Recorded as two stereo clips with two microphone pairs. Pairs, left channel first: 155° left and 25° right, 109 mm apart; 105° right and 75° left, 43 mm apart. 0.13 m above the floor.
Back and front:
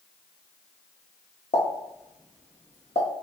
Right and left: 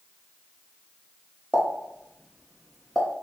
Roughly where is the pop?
Behind.